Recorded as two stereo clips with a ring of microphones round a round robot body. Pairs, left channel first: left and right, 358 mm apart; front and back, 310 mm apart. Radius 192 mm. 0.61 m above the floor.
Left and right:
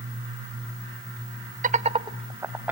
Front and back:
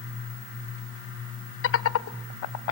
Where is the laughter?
30° right, 0.9 m; by 2.7 s 5° right, 1.3 m.